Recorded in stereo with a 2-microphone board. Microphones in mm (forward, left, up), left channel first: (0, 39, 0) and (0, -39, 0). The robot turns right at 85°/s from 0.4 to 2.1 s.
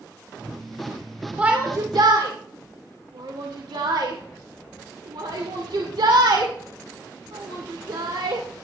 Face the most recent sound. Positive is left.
turn(degrees=-75)  # may be behind; listen again after turning